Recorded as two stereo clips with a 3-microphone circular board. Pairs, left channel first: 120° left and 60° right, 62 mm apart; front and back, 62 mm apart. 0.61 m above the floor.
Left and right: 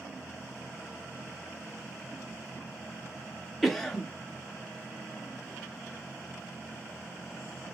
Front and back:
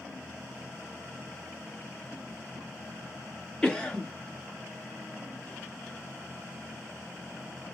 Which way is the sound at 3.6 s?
40° left.